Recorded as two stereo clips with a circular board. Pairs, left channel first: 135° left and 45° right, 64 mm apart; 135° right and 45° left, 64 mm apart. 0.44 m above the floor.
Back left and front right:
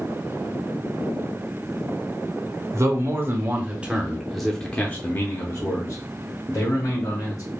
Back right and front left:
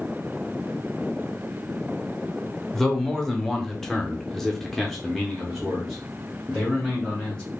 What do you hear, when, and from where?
2.7 s a man speaking: 55° right, 1.1 m; by 7.4 s 135° left, 1.8 m